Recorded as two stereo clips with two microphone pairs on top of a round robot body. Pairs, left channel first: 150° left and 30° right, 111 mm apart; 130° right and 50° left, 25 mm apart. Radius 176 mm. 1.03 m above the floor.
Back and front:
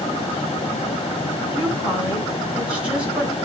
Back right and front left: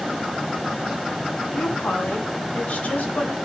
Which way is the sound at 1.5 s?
110° right.